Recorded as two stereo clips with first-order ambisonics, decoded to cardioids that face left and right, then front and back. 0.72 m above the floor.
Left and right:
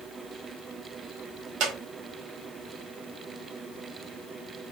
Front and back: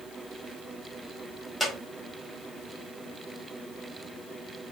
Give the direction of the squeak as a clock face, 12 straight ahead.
3 o'clock.